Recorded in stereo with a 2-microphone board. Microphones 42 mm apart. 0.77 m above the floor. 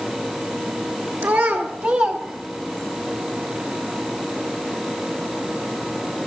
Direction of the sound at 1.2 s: 65° right (ahead or behind).